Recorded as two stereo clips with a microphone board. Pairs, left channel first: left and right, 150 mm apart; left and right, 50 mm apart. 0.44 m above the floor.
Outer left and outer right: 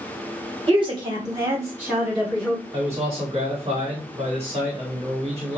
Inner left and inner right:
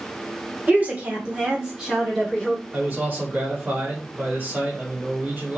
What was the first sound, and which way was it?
A woman speaking, 35° right (ahead or behind).